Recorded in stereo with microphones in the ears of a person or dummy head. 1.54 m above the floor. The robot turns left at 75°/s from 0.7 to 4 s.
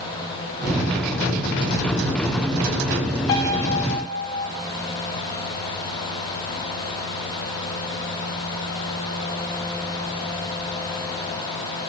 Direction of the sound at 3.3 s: 20° left (ahead or behind).